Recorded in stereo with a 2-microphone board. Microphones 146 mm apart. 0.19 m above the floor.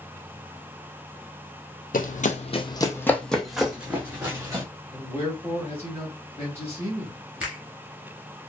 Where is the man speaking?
15° left (ahead or behind), 1.1 m.